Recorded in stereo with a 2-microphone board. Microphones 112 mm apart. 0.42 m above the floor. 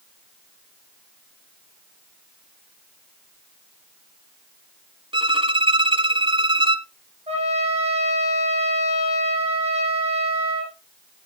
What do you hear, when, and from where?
5.1 s a violin: 50° right (ahead or behind), 1.1 m
7.3 s a trumpet: 65° right (ahead or behind), 5.5 m